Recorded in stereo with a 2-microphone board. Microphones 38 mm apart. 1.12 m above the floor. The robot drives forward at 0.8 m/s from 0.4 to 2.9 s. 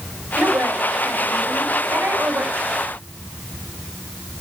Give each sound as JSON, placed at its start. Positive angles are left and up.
{"t": 0.4, "sound": "a woman speaking", "side_deg": -75, "distance_m": 6.0}